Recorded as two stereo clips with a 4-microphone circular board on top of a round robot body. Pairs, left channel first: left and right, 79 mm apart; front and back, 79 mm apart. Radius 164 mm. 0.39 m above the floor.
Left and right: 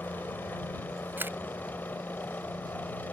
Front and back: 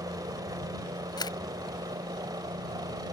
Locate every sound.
0.0 s a helicopter: 155° left
1.2 s a camera shutter: 25° right